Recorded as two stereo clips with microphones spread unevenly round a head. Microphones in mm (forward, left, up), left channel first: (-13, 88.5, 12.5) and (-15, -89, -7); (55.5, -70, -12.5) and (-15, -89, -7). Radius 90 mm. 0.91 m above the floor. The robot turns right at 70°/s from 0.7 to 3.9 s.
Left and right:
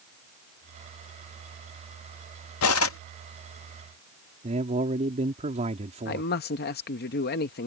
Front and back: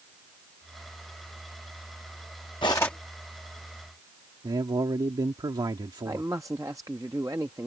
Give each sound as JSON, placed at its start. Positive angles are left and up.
{"t": 2.6, "sound": "cutlery clinking", "azimuth_deg": 75}
{"t": 4.4, "sound": "a man speaking", "azimuth_deg": -140}
{"t": 6.0, "sound": "a man speaking", "azimuth_deg": 125}